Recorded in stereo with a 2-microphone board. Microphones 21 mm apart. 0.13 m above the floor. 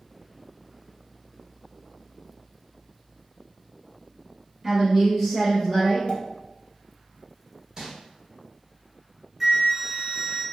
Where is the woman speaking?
20° right (ahead or behind), 1.2 m; by 6.0 s 10° left (ahead or behind), 1.5 m.